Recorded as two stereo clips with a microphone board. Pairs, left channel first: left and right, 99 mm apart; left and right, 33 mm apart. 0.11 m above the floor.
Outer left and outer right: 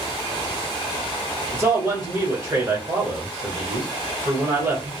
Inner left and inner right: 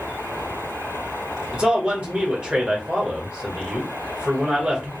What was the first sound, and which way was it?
A man speaking, 35° right (ahead or behind).